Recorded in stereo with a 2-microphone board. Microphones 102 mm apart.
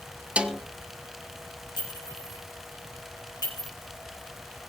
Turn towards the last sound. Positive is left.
turn(degrees=45)  # may be behind; listen again after turning